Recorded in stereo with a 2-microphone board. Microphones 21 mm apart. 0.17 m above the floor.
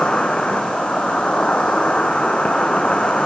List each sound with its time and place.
0.0 s an insect: 80° left, 0.9 m